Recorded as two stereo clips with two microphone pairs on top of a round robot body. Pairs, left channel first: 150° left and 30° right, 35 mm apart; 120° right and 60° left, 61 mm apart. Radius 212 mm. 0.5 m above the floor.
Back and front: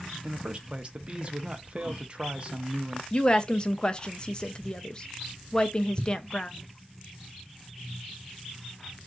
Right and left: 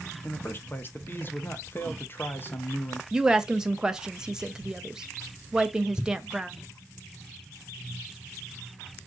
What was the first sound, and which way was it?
A man speaking, 80° right.